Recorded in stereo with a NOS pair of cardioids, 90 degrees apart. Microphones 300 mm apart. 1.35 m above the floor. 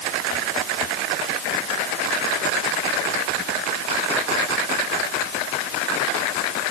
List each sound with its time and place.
Only background noise.